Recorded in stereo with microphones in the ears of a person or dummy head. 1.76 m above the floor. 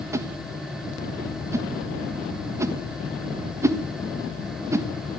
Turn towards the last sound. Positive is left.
turn(degrees=-15)  # may be behind; listen again after turning